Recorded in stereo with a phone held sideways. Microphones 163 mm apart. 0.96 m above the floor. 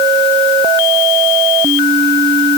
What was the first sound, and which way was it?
Only background noise.